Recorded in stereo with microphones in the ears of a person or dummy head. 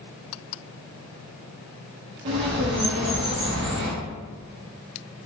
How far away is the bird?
About 0.6 m.